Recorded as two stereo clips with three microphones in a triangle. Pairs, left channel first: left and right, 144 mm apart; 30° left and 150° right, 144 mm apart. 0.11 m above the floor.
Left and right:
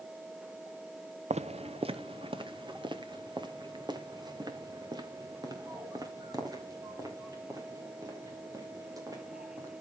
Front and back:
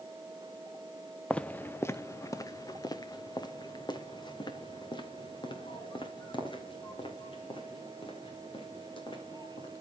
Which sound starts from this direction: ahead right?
Footsteps, at 1.3 s.